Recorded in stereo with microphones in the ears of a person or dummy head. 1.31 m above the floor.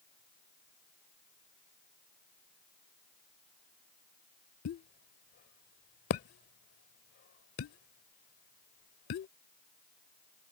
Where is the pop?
45° left (ahead or behind).